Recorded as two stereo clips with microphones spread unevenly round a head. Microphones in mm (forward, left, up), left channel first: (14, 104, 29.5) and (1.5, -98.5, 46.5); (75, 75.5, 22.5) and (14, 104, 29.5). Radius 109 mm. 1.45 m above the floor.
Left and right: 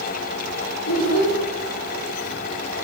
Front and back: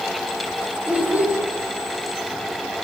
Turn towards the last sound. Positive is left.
turn(degrees=85)